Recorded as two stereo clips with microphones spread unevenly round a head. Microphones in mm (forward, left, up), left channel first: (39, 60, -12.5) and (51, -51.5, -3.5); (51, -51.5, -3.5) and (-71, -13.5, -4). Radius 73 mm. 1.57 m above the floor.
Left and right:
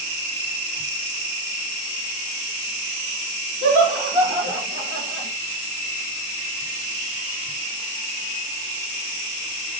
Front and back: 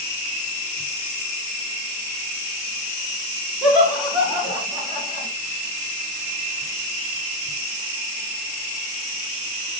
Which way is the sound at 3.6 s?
110° right.